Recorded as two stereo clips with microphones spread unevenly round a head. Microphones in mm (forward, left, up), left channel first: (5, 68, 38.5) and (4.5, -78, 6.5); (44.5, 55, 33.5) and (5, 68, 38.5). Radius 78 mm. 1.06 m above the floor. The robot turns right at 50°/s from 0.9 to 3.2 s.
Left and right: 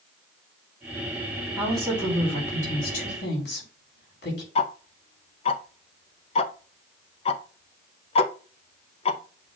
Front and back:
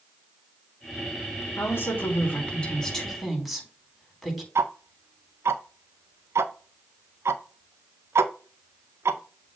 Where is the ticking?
145° left, 0.6 m.